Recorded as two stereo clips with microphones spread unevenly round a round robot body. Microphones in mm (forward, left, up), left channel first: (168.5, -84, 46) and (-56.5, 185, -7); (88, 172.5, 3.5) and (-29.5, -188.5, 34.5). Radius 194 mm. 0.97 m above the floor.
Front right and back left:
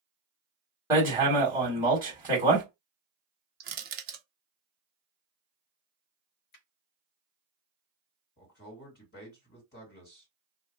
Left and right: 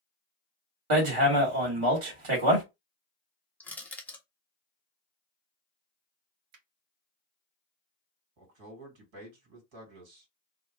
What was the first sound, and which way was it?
Hammering, 145° right.